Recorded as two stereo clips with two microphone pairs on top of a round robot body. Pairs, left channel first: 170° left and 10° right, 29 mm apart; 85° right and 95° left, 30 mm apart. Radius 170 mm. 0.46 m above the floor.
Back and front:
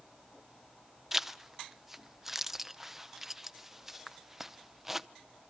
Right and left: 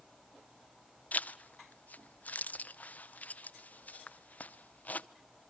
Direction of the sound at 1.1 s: 85° right.